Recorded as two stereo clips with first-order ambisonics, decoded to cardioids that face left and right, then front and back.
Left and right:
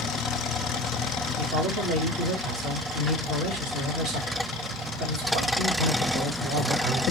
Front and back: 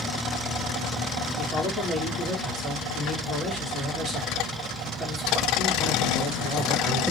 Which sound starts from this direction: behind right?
A man speaking, at 1.4 s.